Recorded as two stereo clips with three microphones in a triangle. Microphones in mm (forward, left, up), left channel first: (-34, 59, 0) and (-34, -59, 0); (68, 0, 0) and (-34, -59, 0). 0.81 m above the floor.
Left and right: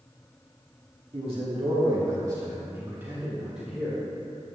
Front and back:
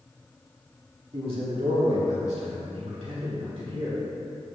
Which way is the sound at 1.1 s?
110° right.